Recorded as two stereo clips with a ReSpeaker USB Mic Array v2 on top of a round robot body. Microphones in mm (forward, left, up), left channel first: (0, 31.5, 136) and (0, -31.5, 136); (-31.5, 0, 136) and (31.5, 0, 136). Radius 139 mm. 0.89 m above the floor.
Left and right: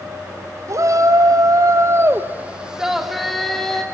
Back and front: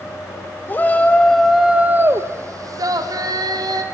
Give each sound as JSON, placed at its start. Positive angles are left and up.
{"t": 0.7, "sound": "a shout", "azimuth_deg": -120, "distance_m": 2.0}